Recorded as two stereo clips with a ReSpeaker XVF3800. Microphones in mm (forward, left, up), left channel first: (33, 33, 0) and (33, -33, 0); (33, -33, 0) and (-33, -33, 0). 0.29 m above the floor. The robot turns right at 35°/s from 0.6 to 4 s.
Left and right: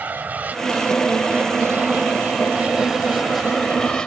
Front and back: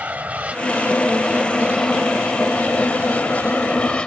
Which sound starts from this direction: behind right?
An aircraft, at 0.0 s.